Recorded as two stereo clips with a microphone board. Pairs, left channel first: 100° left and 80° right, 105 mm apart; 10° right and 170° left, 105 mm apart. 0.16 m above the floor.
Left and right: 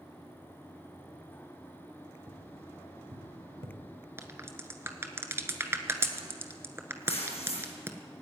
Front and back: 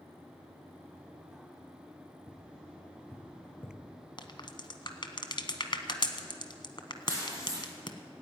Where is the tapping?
90° right, 3.5 m.